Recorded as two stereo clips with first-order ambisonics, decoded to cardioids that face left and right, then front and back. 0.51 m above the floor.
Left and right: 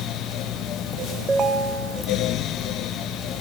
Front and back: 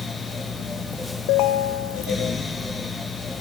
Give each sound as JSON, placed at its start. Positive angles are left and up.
{"t": 1.3, "sound": "a ringtone", "azimuth_deg": -15, "distance_m": 1.0}